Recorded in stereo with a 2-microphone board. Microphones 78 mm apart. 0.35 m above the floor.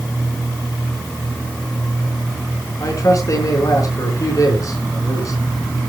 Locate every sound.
2.8 s a man speaking: 45° left (ahead or behind), 4.5 m